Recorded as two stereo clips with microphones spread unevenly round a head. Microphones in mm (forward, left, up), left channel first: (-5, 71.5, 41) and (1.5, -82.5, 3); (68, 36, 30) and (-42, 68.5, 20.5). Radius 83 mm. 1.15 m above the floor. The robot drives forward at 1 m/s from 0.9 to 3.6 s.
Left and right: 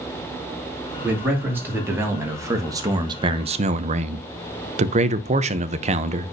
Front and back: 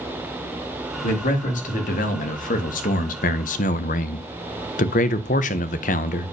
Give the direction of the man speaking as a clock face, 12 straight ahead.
12 o'clock.